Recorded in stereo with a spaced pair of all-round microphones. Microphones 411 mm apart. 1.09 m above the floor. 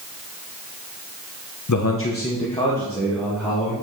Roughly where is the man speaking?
Left.